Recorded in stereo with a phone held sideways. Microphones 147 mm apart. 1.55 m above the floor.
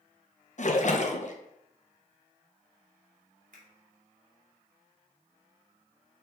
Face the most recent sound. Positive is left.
turn(degrees=-65)  # may be behind; listen again after turning